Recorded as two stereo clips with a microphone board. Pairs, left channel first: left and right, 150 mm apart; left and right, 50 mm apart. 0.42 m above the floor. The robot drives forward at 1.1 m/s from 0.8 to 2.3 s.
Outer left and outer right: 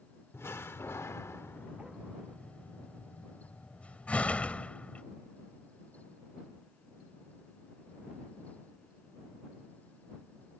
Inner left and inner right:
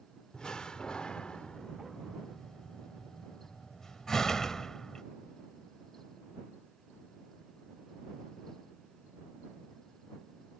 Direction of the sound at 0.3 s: 15° left (ahead or behind).